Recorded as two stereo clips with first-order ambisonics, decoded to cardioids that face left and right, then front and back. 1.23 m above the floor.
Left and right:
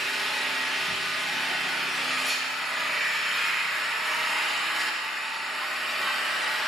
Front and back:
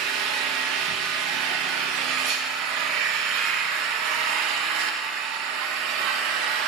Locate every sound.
0.0 s an engine running: straight behind, 0.8 m